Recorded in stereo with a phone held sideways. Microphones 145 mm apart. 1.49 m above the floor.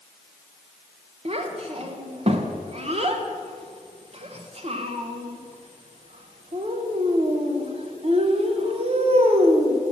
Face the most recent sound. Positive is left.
turn(degrees=-45)  # may be behind; listen again after turning